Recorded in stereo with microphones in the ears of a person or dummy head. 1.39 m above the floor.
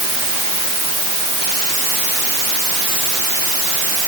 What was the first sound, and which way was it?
Only background noise.